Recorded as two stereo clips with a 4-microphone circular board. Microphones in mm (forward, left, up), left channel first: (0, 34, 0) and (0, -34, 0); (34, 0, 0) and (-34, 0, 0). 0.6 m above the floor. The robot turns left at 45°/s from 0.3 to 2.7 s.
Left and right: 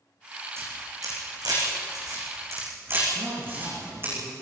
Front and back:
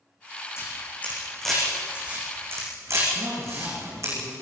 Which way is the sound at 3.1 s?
130° right.